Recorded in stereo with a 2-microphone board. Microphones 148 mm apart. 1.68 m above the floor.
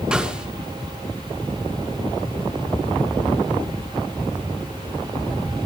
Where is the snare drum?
5° right (ahead or behind), 3 m.